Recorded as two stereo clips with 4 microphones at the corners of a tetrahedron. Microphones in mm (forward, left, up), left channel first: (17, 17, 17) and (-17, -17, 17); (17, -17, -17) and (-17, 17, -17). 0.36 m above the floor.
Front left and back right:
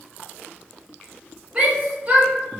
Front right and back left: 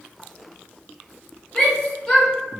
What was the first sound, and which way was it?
A shout, 105° right.